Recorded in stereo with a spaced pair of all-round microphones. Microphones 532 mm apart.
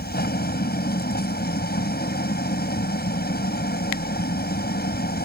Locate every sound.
0.0 s an engine running: 15° left (ahead or behind)